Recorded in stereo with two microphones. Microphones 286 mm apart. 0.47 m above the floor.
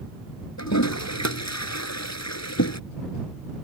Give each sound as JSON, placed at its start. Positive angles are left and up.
{"t": 0.6, "sound": "a toilet flushing", "side_deg": 80}